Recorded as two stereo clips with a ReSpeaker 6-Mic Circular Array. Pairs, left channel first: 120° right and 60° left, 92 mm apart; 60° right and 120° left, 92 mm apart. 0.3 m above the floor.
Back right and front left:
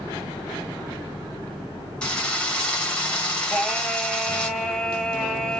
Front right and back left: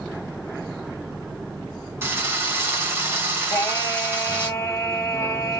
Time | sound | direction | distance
2.0 | a drill | 165° left | 1.0 m
3.5 | singing | 35° right | 0.9 m